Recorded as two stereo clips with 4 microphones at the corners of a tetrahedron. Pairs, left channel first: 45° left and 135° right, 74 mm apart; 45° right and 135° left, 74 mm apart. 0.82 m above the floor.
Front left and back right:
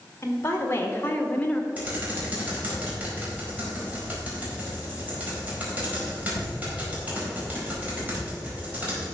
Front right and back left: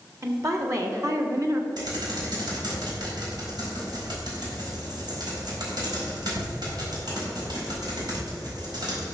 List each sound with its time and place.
0.2 s a woman speaking: 95° left, 2 m; by 1.7 s 115° left, 1.4 m
1.8 s typing on a keyboard: 155° left, 4.5 m